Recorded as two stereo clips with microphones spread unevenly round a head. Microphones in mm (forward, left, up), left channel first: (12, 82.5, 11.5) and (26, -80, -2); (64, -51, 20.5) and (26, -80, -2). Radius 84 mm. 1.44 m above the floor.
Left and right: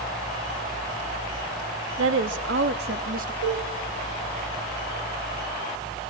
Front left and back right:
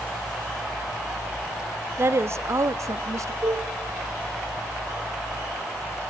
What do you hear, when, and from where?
2.0 s a woman speaking: 100° right, 1.9 m; by 3.3 s 135° right, 1.7 m
3.4 s a cowbell: 105° right, 6.5 m